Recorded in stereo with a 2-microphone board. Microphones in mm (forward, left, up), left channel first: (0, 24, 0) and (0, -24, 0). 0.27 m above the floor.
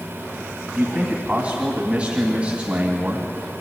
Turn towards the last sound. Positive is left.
turn(degrees=-25)  # may be behind; listen again after turning